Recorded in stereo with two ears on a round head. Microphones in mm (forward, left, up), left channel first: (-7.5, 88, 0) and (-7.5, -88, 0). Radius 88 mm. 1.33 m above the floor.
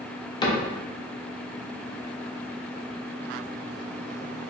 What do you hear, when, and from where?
0.4 s a cupboard door: 25° left (ahead or behind), 0.5 m